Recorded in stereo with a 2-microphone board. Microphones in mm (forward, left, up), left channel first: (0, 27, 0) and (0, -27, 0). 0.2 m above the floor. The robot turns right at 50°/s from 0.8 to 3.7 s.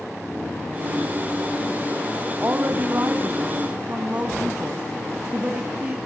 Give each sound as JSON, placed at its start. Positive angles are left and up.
{"t": 2.4, "sound": "a woman speaking", "azimuth_deg": -110, "distance_m": 1.3}